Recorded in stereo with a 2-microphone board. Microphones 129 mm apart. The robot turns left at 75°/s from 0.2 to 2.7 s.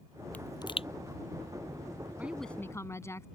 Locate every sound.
0.3 s a pop: 10° left (ahead or behind); by 0.9 s 50° left (ahead or behind)
2.2 s a woman speaking: 165° right; by 3.2 s 155° left